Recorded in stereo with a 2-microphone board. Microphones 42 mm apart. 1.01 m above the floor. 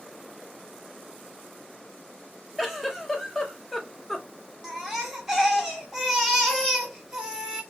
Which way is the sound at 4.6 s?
10° right (ahead or behind).